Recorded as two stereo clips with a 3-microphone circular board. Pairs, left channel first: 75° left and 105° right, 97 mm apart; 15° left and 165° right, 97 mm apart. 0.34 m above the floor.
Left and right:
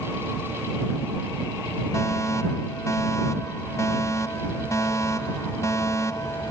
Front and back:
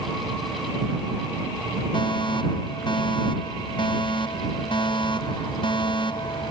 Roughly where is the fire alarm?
Ahead.